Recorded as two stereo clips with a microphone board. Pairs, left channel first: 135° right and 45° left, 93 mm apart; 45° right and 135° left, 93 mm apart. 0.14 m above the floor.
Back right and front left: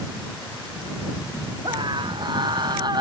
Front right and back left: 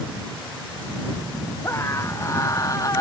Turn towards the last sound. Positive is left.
turn(degrees=5)